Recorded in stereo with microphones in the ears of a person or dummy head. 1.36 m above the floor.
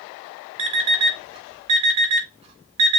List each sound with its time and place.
0.6 s an alarm clock: 30° right (ahead or behind), 1.1 m